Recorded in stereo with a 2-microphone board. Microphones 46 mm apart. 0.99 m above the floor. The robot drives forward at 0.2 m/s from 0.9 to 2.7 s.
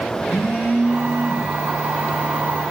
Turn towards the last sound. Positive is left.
turn(degrees=50)  # may be behind; listen again after turning